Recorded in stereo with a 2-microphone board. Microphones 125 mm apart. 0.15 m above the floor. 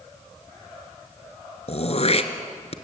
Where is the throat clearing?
55° left (ahead or behind), 1.5 m.